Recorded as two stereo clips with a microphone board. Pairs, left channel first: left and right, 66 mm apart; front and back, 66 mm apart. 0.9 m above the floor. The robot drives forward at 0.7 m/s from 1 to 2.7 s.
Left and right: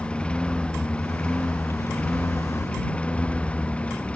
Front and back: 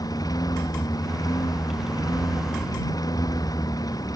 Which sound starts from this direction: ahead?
A lawn mower, at 0.0 s.